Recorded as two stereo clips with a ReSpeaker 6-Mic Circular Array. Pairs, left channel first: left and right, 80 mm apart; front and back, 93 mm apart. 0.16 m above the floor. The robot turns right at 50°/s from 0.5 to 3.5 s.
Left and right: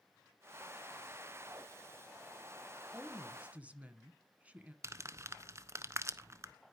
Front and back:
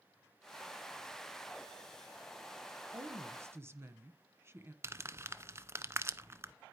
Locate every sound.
2.9 s a woman speaking: 175° right, 1.4 m; by 4.7 s 145° right, 1.4 m
4.8 s crumpling: 125° right, 0.7 m